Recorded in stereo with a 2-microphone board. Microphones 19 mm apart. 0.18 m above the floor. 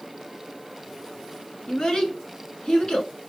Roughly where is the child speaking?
Left.